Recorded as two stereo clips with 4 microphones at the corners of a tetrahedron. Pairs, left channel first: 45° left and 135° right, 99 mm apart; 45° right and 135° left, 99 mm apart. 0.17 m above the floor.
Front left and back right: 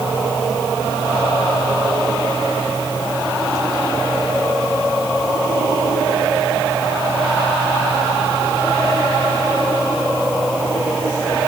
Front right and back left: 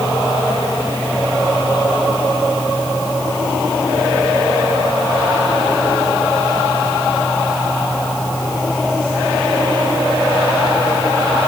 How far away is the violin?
I don't hear a violin.